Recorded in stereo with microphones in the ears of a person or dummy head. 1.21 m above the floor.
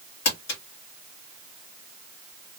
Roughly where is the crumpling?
Left.